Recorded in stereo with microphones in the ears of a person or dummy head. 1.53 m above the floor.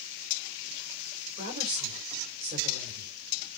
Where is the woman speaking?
30° right (ahead or behind), 6 m.